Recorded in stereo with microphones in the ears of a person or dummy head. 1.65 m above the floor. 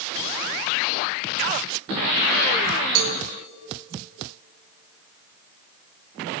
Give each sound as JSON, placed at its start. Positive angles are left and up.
{"t": 3.0, "sound": "a cowbell", "side_deg": -70, "distance_m": 1.6}